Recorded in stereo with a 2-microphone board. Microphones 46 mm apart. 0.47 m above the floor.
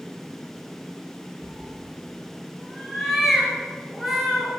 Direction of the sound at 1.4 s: Centre (ahead or behind).